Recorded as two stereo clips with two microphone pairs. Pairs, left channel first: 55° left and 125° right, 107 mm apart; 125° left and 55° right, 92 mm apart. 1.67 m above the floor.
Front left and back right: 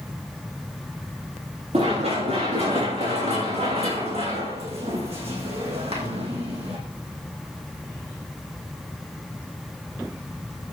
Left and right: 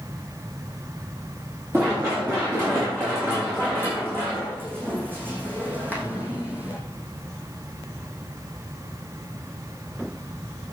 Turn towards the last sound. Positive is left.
turn(degrees=-130)